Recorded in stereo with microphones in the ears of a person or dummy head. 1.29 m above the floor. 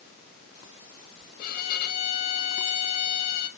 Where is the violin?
60° left (ahead or behind), 1.4 m.